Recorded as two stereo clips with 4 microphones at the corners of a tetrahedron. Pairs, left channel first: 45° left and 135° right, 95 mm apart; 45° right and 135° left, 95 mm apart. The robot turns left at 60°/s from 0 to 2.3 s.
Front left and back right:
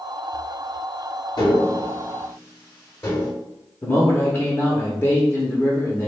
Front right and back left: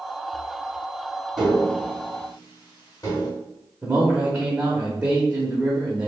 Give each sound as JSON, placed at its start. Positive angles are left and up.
{"t": 1.4, "sound": "tapping", "azimuth_deg": 50, "distance_m": 1.9}
{"t": 3.8, "sound": "a man speaking", "azimuth_deg": 80, "distance_m": 0.8}